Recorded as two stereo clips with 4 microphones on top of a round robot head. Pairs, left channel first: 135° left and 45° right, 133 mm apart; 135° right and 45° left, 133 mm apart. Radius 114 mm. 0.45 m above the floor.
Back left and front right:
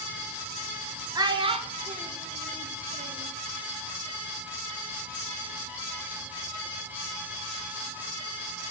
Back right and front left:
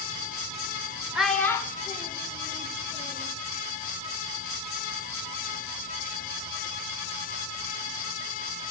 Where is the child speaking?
30° right, 0.5 m; by 3.3 s 90° right, 1.7 m.